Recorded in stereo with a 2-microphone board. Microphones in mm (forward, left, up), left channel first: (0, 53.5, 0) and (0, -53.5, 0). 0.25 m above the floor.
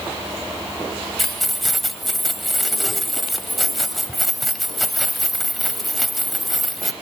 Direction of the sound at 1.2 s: Centre (ahead or behind).